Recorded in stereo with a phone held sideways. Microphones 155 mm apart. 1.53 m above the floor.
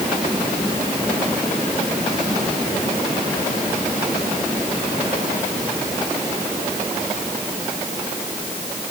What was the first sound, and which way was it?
Only background noise.